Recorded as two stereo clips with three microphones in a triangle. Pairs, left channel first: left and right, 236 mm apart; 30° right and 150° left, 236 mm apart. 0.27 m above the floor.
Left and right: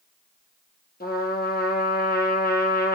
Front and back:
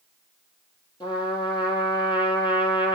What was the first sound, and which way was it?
A trumpet, 40° left.